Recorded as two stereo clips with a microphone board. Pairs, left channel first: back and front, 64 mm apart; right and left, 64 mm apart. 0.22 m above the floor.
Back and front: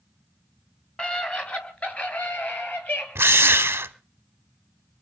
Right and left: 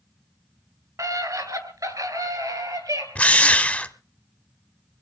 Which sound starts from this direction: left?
A scream, at 1.0 s.